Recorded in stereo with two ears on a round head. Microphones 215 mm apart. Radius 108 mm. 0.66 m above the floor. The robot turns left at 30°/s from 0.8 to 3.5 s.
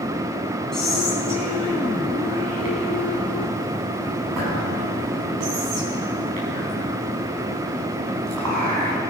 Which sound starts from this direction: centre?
Whispering, at 0.7 s.